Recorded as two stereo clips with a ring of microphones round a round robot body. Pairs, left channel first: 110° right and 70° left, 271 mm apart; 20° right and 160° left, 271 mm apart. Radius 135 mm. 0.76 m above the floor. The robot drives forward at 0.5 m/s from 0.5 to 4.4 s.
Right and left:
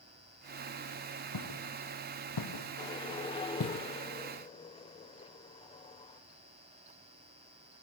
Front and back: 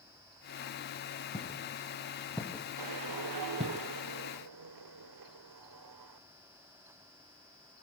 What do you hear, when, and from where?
1.3 s footsteps: 95° right, 3.5 m; by 3.8 s 145° right, 1.3 m
2.8 s a whoosh: 170° left, 0.6 m; by 6.2 s 175° left, 1.4 m